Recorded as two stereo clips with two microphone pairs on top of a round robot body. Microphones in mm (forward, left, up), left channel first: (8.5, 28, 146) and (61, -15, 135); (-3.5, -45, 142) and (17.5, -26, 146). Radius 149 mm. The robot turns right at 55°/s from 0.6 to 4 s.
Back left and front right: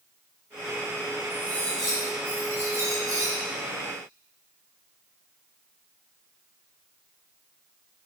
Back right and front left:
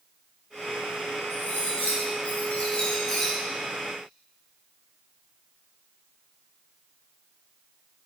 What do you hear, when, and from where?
1.3 s cutlery clinking: 165° right, 2 m; by 3.3 s 55° right, 2 m